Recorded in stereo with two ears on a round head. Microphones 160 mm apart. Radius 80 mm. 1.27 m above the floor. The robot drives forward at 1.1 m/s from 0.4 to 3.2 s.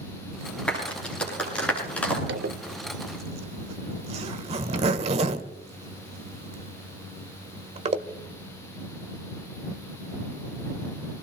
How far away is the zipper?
About 0.9 m.